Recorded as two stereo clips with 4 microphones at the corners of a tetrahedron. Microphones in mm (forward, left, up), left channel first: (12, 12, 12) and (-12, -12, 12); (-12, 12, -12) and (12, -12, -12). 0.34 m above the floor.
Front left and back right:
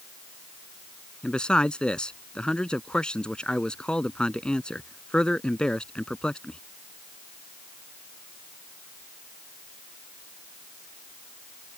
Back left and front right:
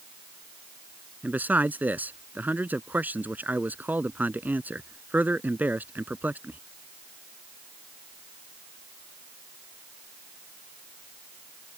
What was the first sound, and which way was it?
A man speaking, 15° right.